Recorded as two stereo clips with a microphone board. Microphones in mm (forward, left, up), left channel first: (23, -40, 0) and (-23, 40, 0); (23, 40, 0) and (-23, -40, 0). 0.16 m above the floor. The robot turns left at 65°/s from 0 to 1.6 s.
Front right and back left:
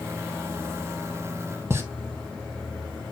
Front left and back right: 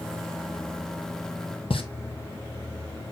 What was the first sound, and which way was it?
A pop, 55° left.